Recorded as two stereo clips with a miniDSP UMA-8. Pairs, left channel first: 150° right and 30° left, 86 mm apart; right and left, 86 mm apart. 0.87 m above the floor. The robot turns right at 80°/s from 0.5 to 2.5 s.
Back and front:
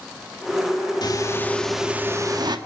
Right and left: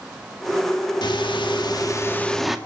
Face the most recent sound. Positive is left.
turn(degrees=5)